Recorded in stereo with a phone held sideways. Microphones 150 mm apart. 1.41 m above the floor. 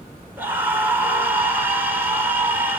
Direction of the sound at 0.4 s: 15° right (ahead or behind).